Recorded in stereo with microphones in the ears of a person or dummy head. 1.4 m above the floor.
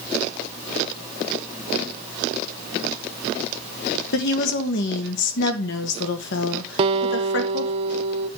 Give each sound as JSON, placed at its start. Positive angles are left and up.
{"t": 4.1, "sound": "a woman speaking", "side_deg": 60, "distance_m": 1.6}
{"t": 6.8, "sound": "a guitar", "side_deg": -35, "distance_m": 0.7}